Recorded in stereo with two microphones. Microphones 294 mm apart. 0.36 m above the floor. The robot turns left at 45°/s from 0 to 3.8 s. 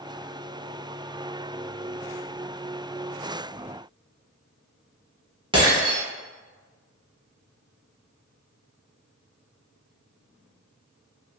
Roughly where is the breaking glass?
Centre.